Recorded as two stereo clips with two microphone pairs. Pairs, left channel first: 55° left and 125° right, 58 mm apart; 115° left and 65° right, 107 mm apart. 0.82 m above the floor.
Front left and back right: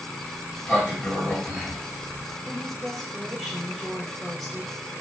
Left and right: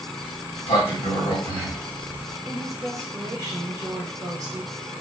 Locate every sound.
0.2 s a sliding door: 130° left, 1.6 m
2.4 s a woman speaking: 35° right, 1.1 m